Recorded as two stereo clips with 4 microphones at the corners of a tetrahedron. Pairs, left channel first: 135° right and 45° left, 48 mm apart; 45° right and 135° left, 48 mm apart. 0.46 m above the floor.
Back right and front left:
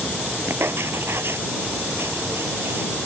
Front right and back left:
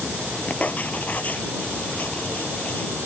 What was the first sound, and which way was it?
Writing, 10° left.